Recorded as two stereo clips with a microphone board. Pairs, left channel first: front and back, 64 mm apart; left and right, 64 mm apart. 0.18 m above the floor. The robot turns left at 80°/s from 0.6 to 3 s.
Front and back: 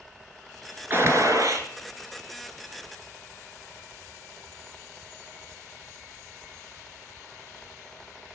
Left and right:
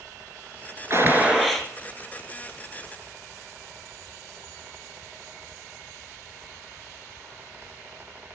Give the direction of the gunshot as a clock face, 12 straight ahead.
4 o'clock.